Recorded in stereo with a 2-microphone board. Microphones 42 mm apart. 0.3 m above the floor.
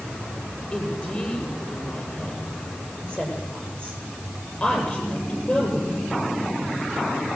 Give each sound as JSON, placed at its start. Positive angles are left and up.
{"t": 0.7, "sound": "a woman speaking", "side_deg": 30, "distance_m": 8.5}